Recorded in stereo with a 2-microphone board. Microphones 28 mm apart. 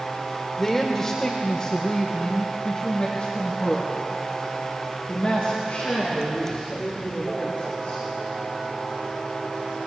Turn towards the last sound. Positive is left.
turn(degrees=55)  # may be behind; listen again after turning